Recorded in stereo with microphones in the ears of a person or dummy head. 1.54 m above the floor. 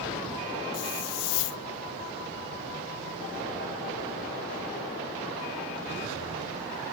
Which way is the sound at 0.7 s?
65° left (ahead or behind).